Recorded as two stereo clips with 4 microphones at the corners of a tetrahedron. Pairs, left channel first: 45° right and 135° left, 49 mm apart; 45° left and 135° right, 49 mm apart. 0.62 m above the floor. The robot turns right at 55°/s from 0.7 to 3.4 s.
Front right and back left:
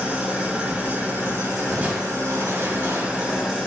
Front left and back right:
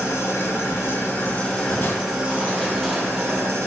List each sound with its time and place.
0.0 s an engine running: 70° left, 1.9 m; by 3.7 s 140° right, 1.9 m
1.7 s crushing: 70° left, 0.9 m; by 3.6 s 165° left, 0.9 m